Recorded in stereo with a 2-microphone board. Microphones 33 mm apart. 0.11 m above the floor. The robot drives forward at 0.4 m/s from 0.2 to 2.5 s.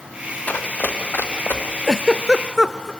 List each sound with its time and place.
0.5 s running footsteps: 55° left (ahead or behind), 2 m; by 1.6 s 80° left, 2.5 m
1.9 s a giggle: 10° right (ahead or behind), 0.7 m; by 2.9 s 15° right (ahead or behind), 0.5 m